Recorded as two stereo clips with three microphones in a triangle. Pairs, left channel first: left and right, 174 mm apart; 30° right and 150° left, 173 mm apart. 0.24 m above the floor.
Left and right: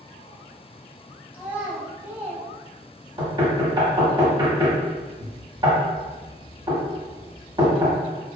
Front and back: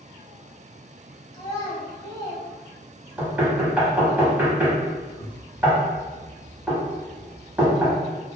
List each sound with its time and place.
1.3 s a child speaking: 25° right, 0.6 m
3.2 s knocking: 135° right, 0.8 m